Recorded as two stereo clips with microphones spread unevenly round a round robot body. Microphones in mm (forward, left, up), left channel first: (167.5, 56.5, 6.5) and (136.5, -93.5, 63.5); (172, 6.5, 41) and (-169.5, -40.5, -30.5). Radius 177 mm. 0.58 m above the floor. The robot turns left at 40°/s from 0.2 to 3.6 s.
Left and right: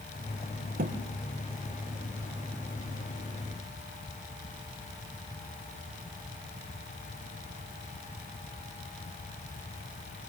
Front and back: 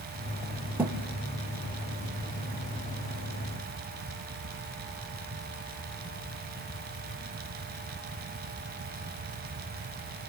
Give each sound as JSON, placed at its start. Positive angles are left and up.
{"t": 0.8, "sound": "a thud", "azimuth_deg": -85, "distance_m": 3.5}